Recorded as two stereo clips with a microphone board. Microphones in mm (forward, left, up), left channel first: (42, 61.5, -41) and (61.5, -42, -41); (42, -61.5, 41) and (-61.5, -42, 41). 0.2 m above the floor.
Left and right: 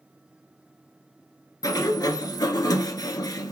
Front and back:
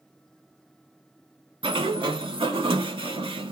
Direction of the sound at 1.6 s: 145° left.